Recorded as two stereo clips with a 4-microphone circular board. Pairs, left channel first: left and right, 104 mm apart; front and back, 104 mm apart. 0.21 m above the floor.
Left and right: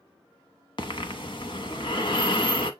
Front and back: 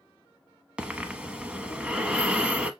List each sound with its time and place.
0.8 s breathing: 105° left, 0.8 m